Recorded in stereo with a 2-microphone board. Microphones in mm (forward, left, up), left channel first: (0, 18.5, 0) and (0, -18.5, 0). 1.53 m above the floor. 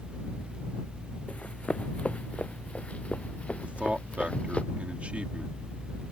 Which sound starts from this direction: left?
Running footsteps, at 1.3 s.